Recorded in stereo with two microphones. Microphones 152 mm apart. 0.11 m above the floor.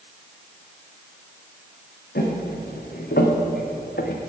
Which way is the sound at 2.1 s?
80° left.